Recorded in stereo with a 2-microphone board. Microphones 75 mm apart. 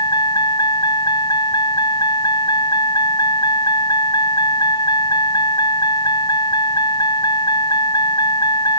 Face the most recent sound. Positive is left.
turn(degrees=70)  # may be behind; listen again after turning